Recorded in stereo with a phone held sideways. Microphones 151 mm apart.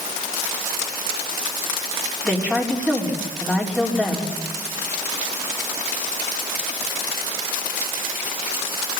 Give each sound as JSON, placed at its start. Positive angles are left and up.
{"t": 2.2, "sound": "a woman speaking", "side_deg": 5, "distance_m": 4.0}